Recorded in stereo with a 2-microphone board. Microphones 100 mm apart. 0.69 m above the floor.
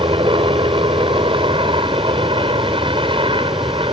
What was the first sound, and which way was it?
A helicopter, 60° right (ahead or behind).